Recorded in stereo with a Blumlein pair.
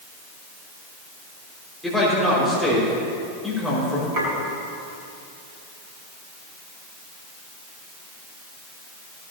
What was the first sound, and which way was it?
A man speaking, straight ahead.